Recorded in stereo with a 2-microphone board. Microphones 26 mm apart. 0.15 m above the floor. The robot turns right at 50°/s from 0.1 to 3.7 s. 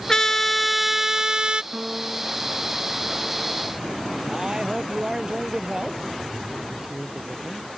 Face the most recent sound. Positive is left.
turn(degrees=-30)  # may be behind; listen again after turning